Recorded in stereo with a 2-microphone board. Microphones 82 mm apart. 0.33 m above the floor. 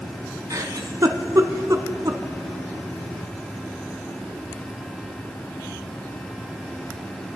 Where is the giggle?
50° right (ahead or behind), 0.6 m.